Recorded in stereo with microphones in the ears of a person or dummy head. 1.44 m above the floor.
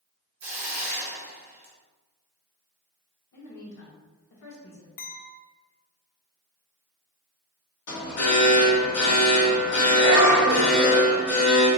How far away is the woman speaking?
About 1.1 m.